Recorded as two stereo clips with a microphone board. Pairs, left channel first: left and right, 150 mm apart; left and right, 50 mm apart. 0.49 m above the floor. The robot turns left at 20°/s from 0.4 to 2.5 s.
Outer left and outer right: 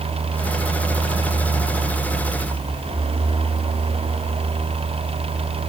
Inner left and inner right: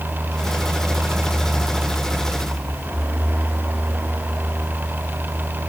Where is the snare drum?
No snare drum in this recording.